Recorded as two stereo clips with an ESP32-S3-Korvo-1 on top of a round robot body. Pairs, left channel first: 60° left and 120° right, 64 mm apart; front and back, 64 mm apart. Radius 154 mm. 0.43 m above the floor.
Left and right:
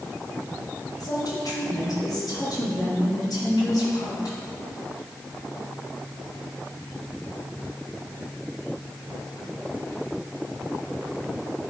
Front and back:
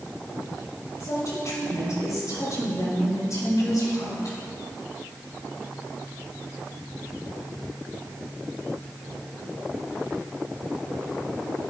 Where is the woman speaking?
35° left, 3.5 m.